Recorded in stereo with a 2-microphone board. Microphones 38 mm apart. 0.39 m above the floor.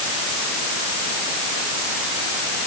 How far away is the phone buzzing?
I don't hear a phone buzzing.